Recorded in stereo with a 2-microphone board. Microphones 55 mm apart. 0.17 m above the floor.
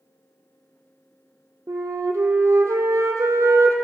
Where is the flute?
75° right (ahead or behind), 1.0 m.